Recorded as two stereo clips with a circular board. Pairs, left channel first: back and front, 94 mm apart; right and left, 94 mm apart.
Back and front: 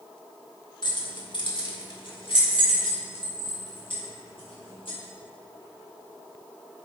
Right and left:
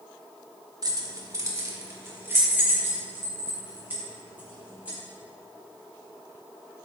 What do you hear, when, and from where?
0.8 s keys jangling: 140° left, 1.1 m; by 5.0 s 165° left, 4 m